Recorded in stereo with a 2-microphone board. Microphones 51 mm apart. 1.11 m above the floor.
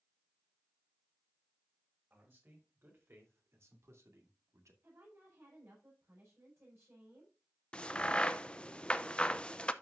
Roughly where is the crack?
Left.